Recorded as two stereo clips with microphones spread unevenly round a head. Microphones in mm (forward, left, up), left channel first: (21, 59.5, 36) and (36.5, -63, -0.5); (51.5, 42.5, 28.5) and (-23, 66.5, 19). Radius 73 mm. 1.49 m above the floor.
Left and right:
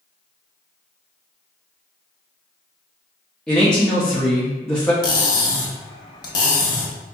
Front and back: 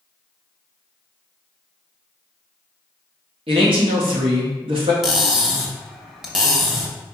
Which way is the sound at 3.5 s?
175° left.